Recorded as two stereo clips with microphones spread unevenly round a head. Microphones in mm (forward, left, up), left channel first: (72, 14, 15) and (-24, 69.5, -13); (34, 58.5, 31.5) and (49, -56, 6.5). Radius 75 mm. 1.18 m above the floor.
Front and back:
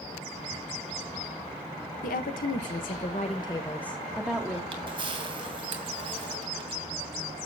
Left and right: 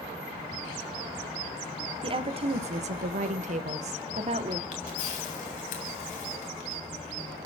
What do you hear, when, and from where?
2.0 s a woman speaking: 40° right, 1.2 m; by 4.6 s 135° right, 1.3 m
4.7 s a camera shutter: 100° left, 2.5 m